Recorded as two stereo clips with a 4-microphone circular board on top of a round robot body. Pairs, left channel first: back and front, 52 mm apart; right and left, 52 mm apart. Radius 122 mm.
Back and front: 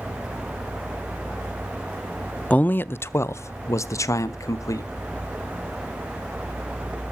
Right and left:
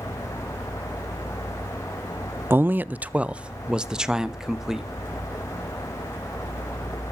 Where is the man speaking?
120° left, 0.5 m; by 4.9 s 170° left, 1.5 m.